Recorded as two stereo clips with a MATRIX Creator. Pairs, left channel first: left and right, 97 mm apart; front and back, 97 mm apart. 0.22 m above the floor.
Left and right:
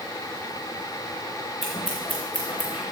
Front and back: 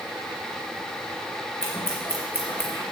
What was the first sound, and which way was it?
Scissors, 65° left.